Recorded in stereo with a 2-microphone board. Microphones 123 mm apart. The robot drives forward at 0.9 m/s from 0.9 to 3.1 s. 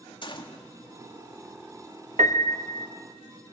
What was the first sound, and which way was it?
A gunshot, 40° left (ahead or behind).